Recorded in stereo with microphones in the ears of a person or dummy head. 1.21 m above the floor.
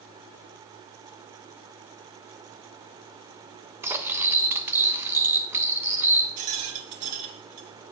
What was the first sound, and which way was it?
Cutlery clinking, 15° right (ahead or behind).